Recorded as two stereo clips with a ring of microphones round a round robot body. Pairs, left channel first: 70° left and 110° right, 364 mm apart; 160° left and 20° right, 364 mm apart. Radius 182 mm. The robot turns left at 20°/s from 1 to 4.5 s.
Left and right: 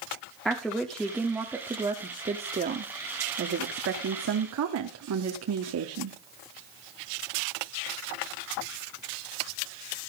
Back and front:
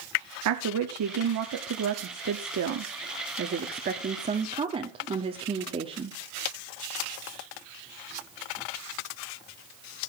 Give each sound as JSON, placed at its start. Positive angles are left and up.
{"t": 0.5, "sound": "a woman speaking", "azimuth_deg": -20, "distance_m": 1.1}